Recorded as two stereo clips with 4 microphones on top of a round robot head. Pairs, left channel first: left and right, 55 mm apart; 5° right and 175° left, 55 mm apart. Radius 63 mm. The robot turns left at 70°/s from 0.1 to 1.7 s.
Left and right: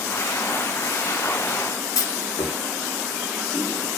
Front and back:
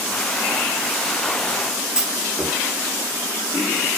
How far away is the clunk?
About 3 m.